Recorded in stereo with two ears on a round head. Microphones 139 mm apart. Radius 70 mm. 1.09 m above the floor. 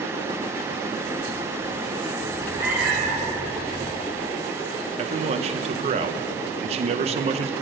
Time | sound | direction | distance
2.2 | a cat meowing | 25° right (ahead or behind) | 2.5 m
5.0 | a man speaking | 40° right (ahead or behind) | 0.6 m